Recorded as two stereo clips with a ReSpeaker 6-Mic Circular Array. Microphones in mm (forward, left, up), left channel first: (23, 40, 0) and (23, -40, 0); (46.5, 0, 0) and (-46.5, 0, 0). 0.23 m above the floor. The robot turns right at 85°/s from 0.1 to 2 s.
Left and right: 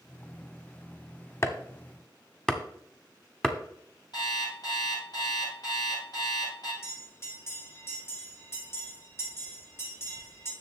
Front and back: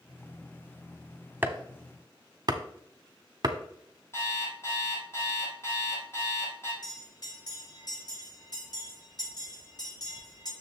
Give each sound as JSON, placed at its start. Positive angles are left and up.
{"t": 1.4, "sound": "chopping", "azimuth_deg": 120, "distance_m": 0.9}
{"t": 4.1, "sound": "an alarm clock", "azimuth_deg": 60, "distance_m": 4.0}
{"t": 6.8, "sound": "a bell", "azimuth_deg": 35, "distance_m": 4.0}